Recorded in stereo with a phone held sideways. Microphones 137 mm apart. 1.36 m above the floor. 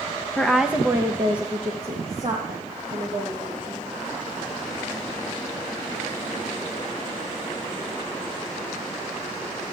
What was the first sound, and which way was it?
A woman speaking, 10° left (ahead or behind).